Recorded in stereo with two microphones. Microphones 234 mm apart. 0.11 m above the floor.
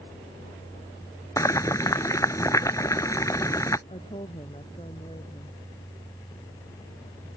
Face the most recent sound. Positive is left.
turn(degrees=25)  # may be behind; listen again after turning